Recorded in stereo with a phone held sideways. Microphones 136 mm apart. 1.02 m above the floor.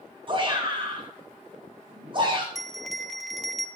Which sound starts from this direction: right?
A shout, at 0.3 s.